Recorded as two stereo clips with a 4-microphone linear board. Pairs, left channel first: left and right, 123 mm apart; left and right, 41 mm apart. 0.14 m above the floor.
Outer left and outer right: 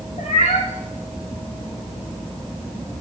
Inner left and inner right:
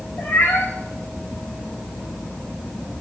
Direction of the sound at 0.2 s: 60° left (ahead or behind).